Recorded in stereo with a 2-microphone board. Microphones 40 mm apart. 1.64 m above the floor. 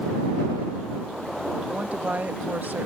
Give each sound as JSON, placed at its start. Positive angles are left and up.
{"t": 1.7, "sound": "a woman speaking", "side_deg": -40}